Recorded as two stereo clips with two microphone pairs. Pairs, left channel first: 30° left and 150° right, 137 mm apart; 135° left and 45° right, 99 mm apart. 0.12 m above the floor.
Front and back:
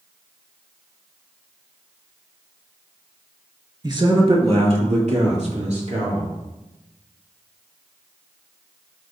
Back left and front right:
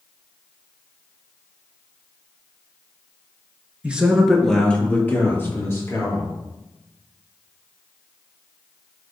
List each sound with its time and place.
3.8 s a man speaking: 115° right, 1.7 m; by 6.3 s 170° right, 4 m